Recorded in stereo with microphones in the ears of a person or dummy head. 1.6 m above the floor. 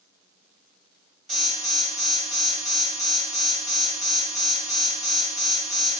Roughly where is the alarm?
Centre.